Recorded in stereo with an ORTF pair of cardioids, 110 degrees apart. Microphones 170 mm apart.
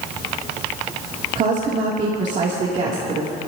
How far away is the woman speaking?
About 3 m.